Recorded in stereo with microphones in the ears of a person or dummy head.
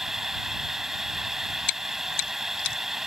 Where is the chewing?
65° left (ahead or behind).